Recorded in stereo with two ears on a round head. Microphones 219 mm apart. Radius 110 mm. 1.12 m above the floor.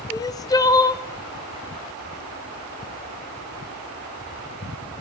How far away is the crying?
About 0.6 m.